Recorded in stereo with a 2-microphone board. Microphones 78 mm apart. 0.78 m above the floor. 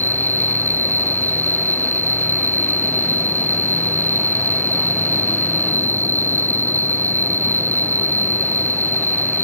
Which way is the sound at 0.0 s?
25° left (ahead or behind).